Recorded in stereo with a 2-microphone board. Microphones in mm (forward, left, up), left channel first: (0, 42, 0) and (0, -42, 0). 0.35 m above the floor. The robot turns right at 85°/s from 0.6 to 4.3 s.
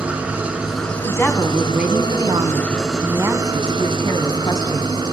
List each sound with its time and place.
0.0 s an engine running: 15° right, 4.5 m; by 5.1 s 60° right, 4.5 m
1.0 s a woman speaking: 135° left, 3 m; by 5.1 s 50° left, 3 m